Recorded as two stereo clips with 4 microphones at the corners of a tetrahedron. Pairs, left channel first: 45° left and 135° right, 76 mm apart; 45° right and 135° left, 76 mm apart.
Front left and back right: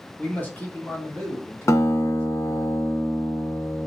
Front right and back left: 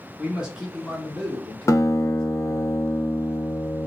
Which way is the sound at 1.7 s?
Straight ahead.